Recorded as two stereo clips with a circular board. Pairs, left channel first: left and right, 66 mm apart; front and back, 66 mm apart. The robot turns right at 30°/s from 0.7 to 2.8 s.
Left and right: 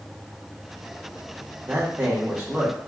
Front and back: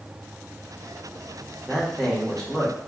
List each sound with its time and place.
1.7 s a man speaking: 90° right, 1.0 m; by 2.8 s 60° right, 1.0 m